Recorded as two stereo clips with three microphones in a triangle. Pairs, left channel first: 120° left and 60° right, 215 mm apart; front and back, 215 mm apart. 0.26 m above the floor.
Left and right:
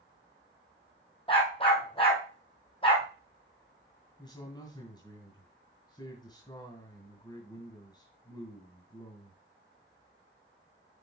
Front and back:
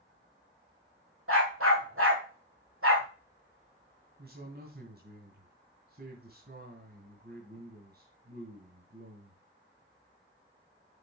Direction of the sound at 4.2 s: 175° right.